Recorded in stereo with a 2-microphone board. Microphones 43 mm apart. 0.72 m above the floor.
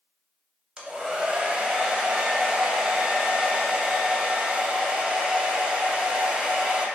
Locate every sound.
0.8 s a hair dryer: 20° right (ahead or behind), 0.6 m